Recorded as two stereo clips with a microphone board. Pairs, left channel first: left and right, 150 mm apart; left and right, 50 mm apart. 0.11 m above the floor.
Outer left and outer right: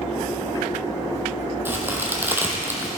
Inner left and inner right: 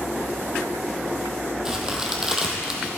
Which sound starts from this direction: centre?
A crack, at 1.6 s.